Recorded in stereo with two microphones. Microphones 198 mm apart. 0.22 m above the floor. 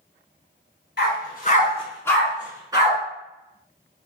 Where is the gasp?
I don't hear a gasp.